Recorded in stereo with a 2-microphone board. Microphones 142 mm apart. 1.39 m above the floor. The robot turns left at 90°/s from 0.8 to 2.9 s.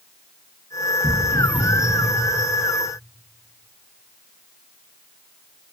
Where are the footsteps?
20° left (ahead or behind), 1.9 m; by 2.1 s 15° left (ahead or behind), 1.9 m.